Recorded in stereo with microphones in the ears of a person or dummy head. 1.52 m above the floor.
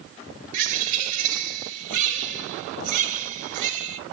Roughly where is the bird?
Right.